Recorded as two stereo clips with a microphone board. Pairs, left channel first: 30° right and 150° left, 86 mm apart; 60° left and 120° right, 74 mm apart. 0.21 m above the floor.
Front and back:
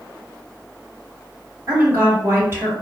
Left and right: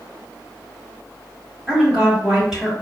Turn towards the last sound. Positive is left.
turn(degrees=165)